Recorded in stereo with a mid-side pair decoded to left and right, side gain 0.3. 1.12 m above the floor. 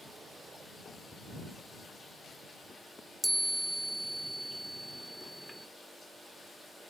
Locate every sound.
3.2 s a chime: 10° right